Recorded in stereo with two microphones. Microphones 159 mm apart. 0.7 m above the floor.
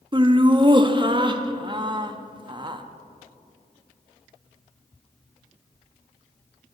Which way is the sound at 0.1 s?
30° right (ahead or behind).